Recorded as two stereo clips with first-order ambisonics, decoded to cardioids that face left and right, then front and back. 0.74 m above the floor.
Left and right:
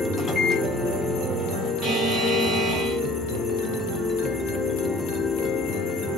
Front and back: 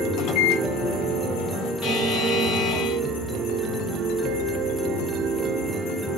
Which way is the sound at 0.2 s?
15° left.